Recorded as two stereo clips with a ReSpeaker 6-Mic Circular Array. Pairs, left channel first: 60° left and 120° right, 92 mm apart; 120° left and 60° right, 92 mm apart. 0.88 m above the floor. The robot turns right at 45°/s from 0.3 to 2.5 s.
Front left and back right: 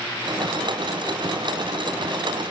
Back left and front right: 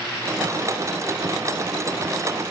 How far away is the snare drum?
I don't hear a snare drum.